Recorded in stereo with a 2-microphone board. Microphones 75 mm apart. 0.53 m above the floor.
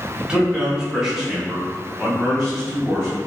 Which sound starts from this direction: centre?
A man speaking, at 0.2 s.